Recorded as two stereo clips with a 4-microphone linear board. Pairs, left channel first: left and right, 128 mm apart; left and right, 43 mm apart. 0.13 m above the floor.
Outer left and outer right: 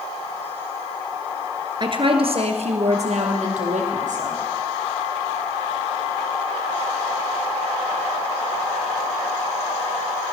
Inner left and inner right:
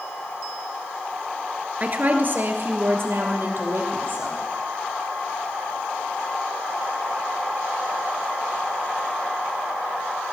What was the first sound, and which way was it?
A woman speaking, 35° right (ahead or behind).